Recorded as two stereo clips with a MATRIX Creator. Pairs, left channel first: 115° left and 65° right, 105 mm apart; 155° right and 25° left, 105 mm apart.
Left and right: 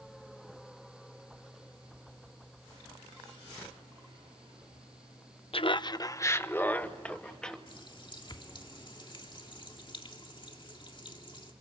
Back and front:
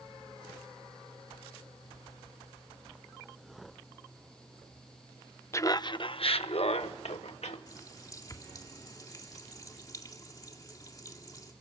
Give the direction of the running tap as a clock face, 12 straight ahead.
7 o'clock.